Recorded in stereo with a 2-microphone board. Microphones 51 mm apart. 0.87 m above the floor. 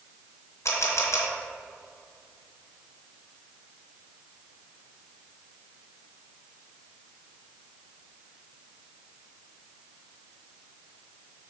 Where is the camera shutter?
70° left (ahead or behind), 1.3 m.